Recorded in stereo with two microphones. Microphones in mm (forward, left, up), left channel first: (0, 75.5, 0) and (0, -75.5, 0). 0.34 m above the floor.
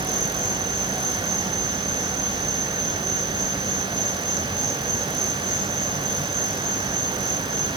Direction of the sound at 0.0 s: 50° right (ahead or behind).